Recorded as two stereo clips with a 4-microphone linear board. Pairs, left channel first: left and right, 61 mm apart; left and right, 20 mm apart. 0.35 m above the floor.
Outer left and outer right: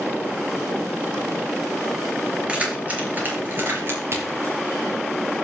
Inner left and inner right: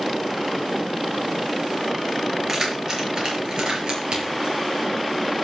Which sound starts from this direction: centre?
Keys jangling, at 2.5 s.